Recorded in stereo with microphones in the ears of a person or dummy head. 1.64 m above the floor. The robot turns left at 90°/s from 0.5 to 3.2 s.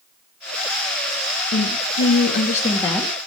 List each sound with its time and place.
1.5 s a woman speaking: 140° left, 3 m; by 3.1 s 10° right, 3 m